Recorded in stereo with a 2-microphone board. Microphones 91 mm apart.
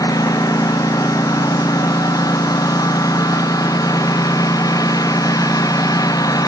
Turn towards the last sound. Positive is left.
turn(degrees=40)  # may be behind; listen again after turning